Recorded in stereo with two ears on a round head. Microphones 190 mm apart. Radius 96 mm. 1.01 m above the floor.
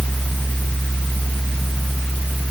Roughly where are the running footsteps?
No running footsteps in this recording.